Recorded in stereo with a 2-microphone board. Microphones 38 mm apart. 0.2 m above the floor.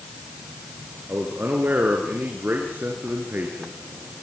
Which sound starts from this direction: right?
A man speaking, at 1.1 s.